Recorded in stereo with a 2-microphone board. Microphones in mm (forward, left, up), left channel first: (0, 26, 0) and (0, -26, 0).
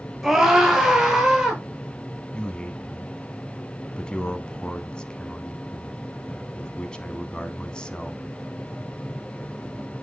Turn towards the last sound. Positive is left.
turn(degrees=20)  # may be behind; listen again after turning